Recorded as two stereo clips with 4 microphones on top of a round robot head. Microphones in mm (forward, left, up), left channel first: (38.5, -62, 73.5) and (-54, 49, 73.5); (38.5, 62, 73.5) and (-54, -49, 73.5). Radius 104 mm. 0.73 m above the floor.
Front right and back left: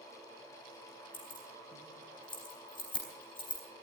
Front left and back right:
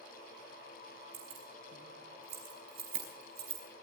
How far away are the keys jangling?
About 5 m.